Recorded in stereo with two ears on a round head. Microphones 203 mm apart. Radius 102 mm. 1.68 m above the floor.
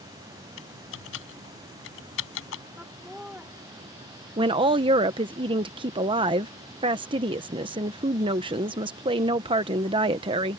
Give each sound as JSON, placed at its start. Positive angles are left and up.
{"t": 0.6, "sound": "typing on a keyboard", "side_deg": 65}
{"t": 2.8, "sound": "laughter", "side_deg": -5}
{"t": 4.4, "sound": "a woman speaking", "side_deg": -20}